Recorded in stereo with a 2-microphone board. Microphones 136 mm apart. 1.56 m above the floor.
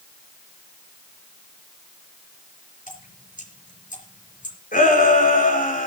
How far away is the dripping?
About 5 m.